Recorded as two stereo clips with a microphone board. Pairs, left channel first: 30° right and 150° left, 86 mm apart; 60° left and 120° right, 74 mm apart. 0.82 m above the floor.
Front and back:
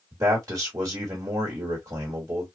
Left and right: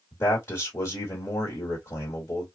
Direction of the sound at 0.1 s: 110° left.